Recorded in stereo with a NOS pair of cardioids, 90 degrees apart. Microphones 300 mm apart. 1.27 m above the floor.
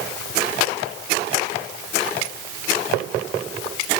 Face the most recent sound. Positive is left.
No sound to turn to.